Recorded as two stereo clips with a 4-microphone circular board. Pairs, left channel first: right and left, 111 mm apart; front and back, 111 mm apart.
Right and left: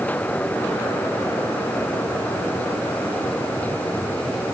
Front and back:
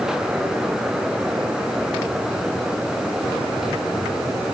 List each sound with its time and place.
Only background noise.